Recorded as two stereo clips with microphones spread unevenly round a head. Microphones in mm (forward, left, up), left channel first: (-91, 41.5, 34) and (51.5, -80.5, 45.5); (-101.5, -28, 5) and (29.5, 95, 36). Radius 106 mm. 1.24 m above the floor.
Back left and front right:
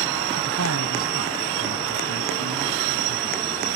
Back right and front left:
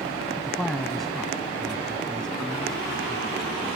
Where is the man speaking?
45° right; by 3.4 s 50° right.